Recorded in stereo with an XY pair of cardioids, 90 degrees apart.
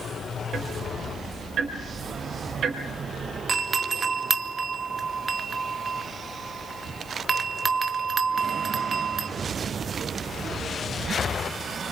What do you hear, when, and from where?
0.5 s ticking: 65° right, 4.5 m
3.5 s a doorbell: 40° right, 2 m